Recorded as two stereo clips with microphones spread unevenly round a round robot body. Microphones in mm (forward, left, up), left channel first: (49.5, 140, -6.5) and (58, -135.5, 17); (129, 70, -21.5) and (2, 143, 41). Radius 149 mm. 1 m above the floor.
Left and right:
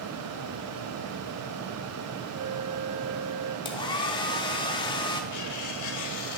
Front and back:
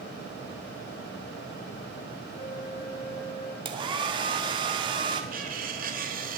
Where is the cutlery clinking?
130° left, 1.2 m.